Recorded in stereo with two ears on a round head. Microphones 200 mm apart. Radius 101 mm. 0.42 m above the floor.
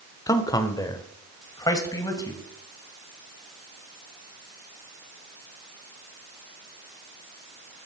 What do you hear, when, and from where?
0.3 s a man speaking: 15° left (ahead or behind), 0.9 m